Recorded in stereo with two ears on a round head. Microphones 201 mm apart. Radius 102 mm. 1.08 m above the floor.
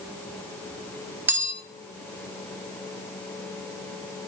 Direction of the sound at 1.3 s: 10° right (ahead or behind).